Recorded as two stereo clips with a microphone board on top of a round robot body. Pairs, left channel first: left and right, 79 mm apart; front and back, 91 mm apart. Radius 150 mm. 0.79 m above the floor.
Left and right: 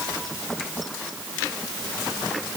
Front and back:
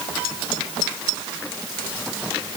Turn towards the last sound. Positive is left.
No sound to turn to.